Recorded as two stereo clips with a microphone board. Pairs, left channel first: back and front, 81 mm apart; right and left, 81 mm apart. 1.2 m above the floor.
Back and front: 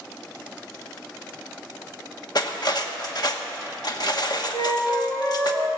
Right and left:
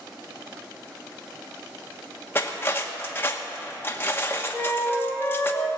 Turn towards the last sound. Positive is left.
turn(degrees=-175)